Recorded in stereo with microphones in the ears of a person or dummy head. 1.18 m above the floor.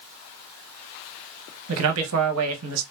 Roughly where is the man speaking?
Right.